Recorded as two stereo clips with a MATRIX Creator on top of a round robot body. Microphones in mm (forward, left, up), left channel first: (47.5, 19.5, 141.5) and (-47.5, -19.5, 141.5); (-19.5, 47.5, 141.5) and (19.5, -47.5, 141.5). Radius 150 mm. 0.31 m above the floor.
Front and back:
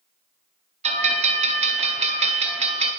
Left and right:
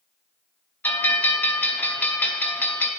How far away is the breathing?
I don't hear breathing.